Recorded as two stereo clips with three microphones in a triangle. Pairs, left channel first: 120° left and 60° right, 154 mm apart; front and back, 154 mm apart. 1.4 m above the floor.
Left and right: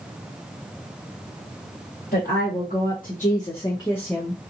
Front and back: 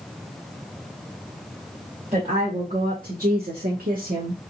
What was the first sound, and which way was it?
A woman speaking, 135° left.